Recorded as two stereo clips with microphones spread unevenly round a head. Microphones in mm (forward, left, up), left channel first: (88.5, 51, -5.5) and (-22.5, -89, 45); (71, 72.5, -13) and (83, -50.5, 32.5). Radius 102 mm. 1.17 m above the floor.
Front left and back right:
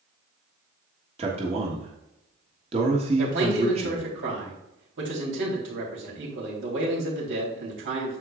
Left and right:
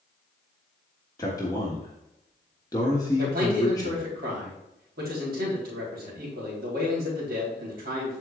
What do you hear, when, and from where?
1.2 s a man speaking: 170° left, 1.3 m
3.2 s a man speaking: 110° right, 3.5 m